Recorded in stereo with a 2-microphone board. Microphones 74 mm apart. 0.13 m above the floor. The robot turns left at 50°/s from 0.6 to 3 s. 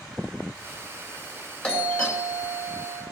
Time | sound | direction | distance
1.6 | a doorbell | 15° left (ahead or behind) | 2.5 m